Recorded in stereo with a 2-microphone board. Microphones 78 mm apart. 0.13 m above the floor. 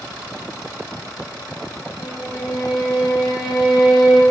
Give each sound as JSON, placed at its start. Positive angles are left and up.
{"t": 2.0, "sound": "a violin", "side_deg": 75, "distance_m": 2.0}